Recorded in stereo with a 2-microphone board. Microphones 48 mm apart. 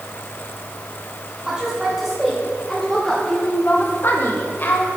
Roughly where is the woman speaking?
Centre.